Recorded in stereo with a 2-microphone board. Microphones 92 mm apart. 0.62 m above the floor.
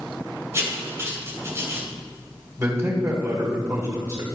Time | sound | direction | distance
0.5 | writing | 30° right (ahead or behind) | 2 m
2.6 | a man speaking | 35° right (ahead or behind) | 2 m